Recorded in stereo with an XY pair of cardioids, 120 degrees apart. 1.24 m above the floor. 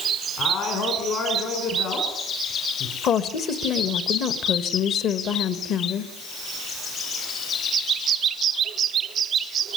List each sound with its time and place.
0.4 s a man speaking: 60° left, 5 m
3.0 s a woman speaking: 60° left, 1.6 m